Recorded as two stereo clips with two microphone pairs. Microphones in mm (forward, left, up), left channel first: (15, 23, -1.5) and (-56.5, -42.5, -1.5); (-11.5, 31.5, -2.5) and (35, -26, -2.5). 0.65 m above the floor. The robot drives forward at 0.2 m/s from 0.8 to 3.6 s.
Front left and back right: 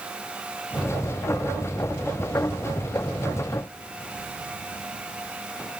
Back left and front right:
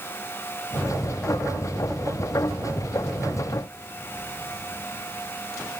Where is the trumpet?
I don't hear a trumpet.